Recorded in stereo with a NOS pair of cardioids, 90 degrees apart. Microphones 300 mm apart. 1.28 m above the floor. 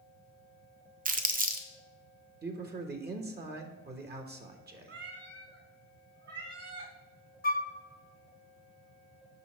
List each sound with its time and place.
1.1 s crumpling: 30° right, 0.8 m
2.4 s a man speaking: 35° right, 1.3 m
4.9 s a cat meowing: 50° right, 3 m
7.4 s a flute: 30° left, 0.8 m